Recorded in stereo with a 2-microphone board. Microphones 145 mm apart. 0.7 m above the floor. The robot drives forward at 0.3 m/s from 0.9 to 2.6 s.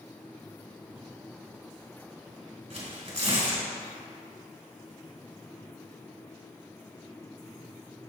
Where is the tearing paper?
55° right (ahead or behind), 2 m.